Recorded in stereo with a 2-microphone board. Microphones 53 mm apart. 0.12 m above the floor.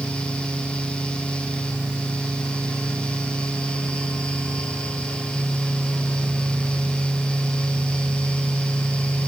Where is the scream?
I don't hear a scream.